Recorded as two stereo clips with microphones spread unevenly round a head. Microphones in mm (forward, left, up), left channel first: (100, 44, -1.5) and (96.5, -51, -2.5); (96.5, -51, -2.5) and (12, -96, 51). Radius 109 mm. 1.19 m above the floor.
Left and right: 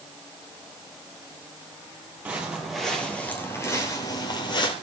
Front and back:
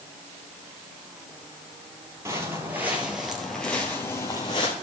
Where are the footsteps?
170° right, 1.8 m; by 4.7 s 110° left, 1.9 m.